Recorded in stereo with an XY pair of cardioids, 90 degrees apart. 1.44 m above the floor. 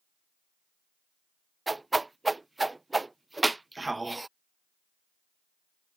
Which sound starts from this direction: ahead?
A whoosh, at 1.7 s.